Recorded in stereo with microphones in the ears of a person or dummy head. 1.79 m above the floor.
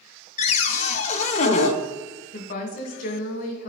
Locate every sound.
0.4 s a cupboard door: 45° left (ahead or behind), 0.6 m
2.3 s a woman speaking: 55° left (ahead or behind), 1.4 m